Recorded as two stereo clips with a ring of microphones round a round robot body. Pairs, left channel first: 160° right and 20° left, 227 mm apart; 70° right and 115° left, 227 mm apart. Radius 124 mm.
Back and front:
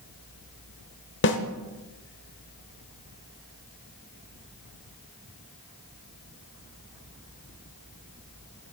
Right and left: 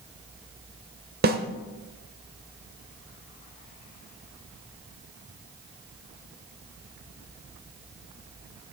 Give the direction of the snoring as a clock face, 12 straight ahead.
I don't hear snoring.